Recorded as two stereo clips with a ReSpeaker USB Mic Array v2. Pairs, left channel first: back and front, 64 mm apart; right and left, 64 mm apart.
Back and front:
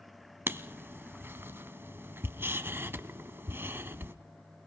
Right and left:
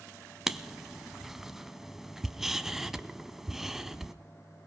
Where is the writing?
10° left, 0.8 m.